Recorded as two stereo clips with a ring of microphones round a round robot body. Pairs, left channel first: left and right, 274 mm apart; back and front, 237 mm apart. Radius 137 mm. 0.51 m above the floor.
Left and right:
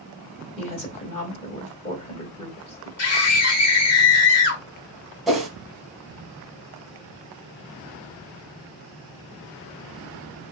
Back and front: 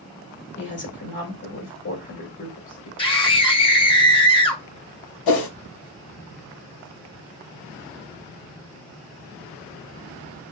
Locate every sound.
0.6 s a woman speaking: 155° left, 2 m
3.0 s a scream: 115° left, 1.4 m
5.3 s a whoosh: straight behind, 1.0 m